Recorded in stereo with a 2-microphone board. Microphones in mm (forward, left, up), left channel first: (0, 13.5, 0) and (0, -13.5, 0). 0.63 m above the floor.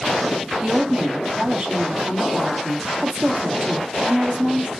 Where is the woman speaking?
45° right (ahead or behind), 0.7 m.